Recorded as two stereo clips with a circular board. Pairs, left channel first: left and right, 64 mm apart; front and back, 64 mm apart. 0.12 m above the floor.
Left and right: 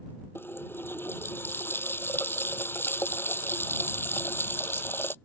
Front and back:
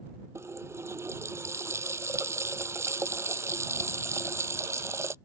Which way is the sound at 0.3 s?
140° left.